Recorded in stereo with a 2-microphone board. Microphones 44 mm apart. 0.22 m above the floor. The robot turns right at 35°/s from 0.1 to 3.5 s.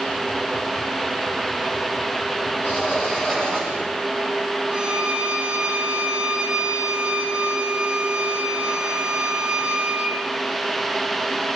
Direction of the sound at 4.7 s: 20° right (ahead or behind).